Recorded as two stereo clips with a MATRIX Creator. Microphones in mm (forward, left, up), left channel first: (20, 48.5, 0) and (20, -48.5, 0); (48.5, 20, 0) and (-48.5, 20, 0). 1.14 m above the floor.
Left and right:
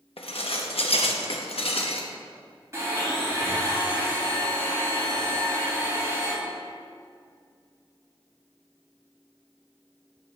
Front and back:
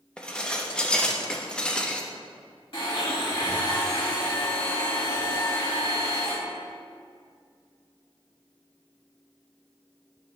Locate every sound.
0.2 s dishes clattering: 80° left, 0.8 m
2.7 s a blender: 30° right, 3 m